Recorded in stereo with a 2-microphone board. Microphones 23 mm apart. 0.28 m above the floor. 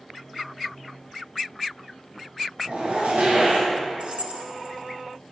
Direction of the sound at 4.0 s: 55° right (ahead or behind).